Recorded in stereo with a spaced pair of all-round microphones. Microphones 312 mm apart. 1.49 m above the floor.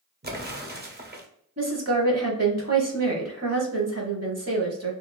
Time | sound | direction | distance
0.2 | an explosion | 30° right (ahead or behind) | 0.6 m
1.6 | a woman speaking | 50° right (ahead or behind) | 1.0 m